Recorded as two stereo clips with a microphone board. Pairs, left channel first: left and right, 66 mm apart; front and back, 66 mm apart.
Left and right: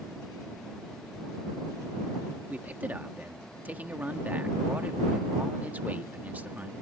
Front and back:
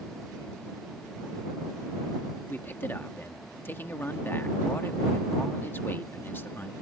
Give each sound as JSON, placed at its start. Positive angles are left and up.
{"t": 2.5, "sound": "a man speaking", "azimuth_deg": -40}